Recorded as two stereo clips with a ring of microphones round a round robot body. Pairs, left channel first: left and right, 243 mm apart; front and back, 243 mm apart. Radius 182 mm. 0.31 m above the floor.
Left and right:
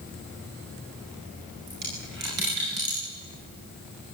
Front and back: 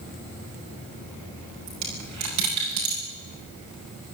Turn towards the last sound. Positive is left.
turn(degrees=-150)